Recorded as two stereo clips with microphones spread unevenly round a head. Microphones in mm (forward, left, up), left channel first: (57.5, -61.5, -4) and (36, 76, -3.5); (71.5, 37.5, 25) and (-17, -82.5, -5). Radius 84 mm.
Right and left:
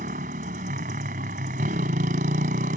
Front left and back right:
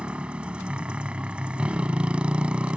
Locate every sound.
0.0 s a motorcycle: 145° left